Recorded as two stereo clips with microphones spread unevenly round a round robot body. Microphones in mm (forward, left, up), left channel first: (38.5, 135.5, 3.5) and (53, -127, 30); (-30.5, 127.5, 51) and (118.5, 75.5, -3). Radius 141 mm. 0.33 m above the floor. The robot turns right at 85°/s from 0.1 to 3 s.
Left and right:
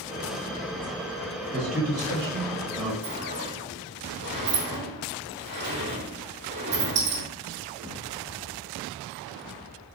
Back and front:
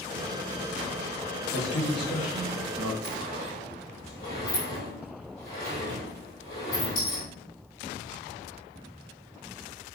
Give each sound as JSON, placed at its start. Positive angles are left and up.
{"t": 1.5, "sound": "a man speaking", "azimuth_deg": 165, "distance_m": 3.0}
{"t": 3.0, "sound": "a sliding door", "azimuth_deg": -140, "distance_m": 3.0}